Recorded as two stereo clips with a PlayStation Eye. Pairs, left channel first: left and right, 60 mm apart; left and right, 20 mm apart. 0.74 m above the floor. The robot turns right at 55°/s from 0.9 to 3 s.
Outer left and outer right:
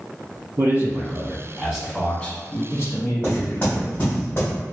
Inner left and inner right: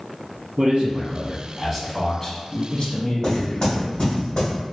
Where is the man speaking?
55° right, 1.2 m; by 3.9 s 60° left, 1.2 m.